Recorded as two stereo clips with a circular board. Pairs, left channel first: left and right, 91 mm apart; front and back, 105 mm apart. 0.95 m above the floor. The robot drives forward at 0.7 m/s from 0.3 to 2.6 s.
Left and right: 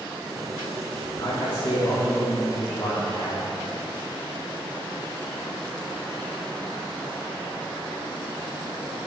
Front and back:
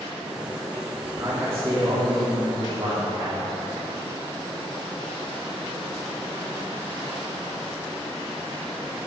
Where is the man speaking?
115° left, 2 m; by 3.5 s 135° left, 3 m.